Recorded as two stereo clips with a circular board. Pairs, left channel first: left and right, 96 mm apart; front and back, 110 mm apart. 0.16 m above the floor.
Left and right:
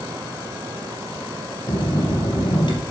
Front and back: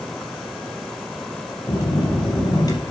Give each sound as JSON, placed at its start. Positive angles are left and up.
{"t": 1.7, "sound": "a bell", "azimuth_deg": 50, "distance_m": 3.5}